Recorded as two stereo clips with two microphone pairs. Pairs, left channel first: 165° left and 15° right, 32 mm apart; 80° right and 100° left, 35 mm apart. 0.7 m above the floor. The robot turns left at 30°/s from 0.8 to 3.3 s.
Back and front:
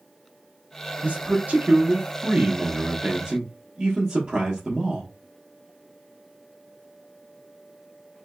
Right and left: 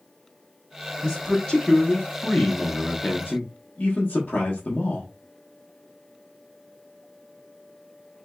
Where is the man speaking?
20° left, 0.8 m; by 5.1 s 50° right, 0.8 m.